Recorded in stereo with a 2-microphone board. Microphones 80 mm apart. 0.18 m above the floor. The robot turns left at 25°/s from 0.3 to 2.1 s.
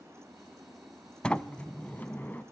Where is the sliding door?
10° left (ahead or behind), 0.6 m; by 2.4 s 20° left (ahead or behind), 0.6 m.